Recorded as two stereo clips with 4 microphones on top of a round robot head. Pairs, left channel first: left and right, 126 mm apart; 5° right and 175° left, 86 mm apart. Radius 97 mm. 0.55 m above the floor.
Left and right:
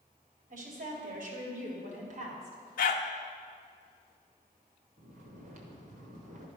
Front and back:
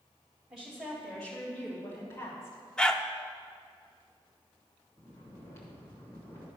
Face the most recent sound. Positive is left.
turn(degrees=-70)